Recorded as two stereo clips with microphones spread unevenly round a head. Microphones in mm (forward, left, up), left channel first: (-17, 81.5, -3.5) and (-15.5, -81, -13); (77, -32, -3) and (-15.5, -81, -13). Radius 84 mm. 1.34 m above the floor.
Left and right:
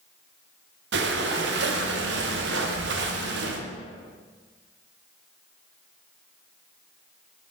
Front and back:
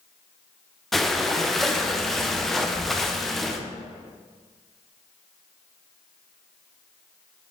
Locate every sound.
0.9 s breathing: 60° right, 0.7 m